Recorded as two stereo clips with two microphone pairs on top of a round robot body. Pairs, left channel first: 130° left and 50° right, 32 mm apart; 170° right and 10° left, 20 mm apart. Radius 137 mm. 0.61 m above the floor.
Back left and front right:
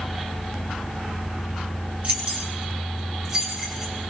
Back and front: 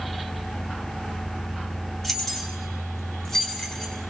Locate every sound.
2.0 s keys jangling: 90° right, 4 m; by 3.9 s 120° right, 5 m